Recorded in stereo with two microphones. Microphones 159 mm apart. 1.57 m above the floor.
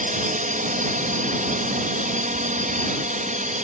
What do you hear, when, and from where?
0.0 s a drone: 60° right (ahead or behind); by 3.6 s 55° right (ahead or behind)